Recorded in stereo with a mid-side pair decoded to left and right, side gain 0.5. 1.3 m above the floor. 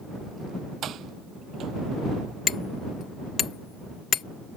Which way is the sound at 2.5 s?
45° left.